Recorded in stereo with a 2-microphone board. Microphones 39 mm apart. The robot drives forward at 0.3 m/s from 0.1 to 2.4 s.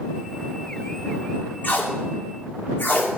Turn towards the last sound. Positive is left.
turn(degrees=50)  # may be behind; listen again after turning